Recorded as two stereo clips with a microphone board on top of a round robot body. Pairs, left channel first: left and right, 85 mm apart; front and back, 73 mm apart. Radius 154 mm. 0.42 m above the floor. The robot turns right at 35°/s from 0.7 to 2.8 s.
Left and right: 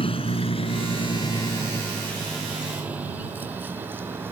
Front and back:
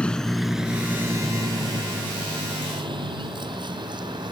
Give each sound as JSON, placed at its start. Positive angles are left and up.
{"t": 0.0, "sound": "a vehicle", "azimuth_deg": 80}